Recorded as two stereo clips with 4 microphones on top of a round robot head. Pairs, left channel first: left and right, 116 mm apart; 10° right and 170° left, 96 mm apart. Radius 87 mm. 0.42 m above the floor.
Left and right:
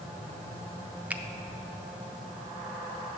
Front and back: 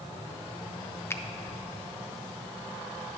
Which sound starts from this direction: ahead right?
A finger snap, at 1.1 s.